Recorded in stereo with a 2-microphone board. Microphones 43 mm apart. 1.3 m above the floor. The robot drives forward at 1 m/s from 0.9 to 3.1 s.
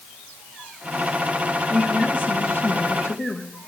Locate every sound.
1.7 s a woman speaking: 50° left (ahead or behind), 2.5 m; by 3.5 s 80° left, 1.9 m